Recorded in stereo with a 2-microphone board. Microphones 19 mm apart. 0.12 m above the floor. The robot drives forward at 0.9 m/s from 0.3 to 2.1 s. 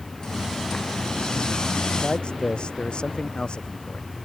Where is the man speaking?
55° left (ahead or behind).